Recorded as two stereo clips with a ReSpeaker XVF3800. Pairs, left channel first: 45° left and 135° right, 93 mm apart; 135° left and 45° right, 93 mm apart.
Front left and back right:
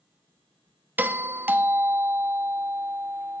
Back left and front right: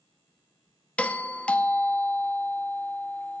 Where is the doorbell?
165° right, 0.6 m.